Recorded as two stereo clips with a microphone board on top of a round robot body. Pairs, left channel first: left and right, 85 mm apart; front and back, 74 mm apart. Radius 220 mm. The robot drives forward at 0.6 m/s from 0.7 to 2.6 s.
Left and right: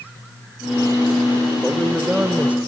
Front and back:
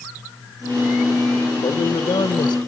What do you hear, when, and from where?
1.6 s a man speaking: 10° right, 1.5 m; by 2.6 s 15° right, 1.0 m